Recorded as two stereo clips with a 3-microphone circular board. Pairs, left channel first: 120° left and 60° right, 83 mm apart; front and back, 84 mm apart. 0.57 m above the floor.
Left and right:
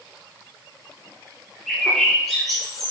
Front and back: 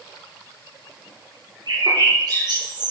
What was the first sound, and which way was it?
A bird, 150° right.